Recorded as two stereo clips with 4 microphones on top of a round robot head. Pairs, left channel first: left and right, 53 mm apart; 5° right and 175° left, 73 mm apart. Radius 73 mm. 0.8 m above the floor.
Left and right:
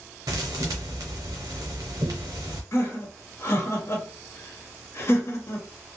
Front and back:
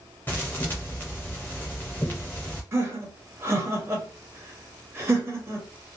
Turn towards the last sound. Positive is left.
turn(degrees=125)